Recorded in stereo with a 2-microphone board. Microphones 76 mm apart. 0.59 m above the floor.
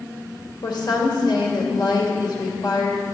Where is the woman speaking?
70° left (ahead or behind), 1.8 m.